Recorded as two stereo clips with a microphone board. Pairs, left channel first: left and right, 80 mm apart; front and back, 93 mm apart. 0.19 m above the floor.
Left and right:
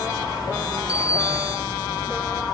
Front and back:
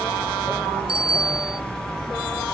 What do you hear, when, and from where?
0.9 s a bicycle bell: 165° right